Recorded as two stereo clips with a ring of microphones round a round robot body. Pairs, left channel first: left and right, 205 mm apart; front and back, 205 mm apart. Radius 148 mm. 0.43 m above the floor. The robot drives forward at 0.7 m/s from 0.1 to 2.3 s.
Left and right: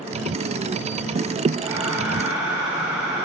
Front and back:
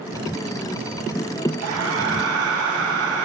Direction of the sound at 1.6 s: 170° right.